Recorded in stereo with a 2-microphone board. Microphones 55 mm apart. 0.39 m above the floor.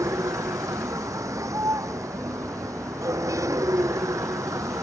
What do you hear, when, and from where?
0.0 s a vehicle: 75° right (ahead or behind)